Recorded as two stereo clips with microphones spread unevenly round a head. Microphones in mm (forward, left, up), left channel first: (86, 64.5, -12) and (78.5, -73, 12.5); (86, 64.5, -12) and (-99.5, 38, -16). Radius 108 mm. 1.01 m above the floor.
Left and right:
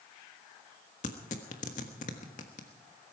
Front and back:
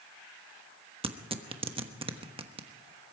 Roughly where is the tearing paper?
Behind left.